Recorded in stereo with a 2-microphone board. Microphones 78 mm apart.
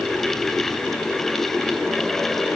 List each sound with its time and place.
Only background noise.